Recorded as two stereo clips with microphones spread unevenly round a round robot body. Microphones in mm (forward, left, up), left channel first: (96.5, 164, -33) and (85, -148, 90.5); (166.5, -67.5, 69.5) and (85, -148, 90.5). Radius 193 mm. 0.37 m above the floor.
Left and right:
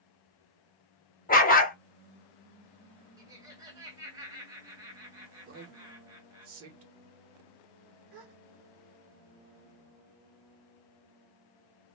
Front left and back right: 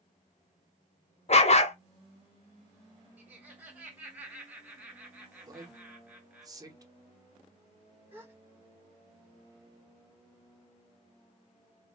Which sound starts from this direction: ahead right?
A gasp, at 8.1 s.